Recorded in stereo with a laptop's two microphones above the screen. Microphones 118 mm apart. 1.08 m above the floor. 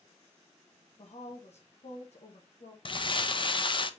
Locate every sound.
1.0 s a woman speaking: 70° left (ahead or behind), 1.0 m
2.9 s crumpling: 45° left (ahead or behind), 0.6 m